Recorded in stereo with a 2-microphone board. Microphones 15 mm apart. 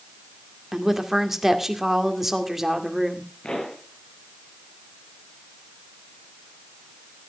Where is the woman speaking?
20° right (ahead or behind), 2 m.